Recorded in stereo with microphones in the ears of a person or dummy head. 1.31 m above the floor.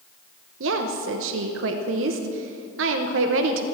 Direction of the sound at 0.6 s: 65° right (ahead or behind).